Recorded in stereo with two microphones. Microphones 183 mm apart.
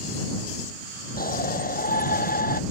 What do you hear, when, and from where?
1.2 s a shout: 55° left (ahead or behind)